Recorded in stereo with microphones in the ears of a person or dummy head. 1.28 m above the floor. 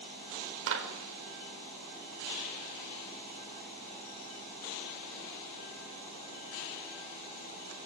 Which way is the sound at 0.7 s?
75° right (ahead or behind).